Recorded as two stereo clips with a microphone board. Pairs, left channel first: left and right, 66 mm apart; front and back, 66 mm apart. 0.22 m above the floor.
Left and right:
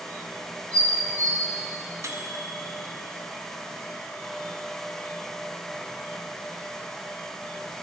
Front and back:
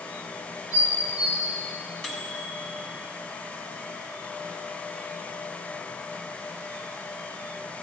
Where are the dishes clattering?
35° left, 4 m.